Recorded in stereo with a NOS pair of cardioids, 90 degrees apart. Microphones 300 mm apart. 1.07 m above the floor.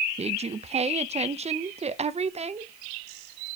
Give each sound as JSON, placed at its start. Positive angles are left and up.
{"t": 0.2, "sound": "a woman speaking", "azimuth_deg": -20, "distance_m": 0.6}